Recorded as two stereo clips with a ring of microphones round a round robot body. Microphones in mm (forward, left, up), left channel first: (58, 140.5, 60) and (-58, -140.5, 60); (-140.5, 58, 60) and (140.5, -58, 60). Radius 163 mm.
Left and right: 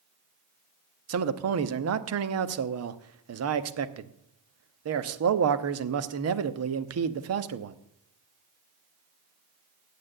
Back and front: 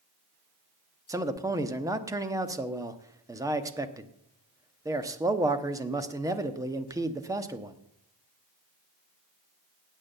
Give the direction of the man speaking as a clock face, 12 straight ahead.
3 o'clock.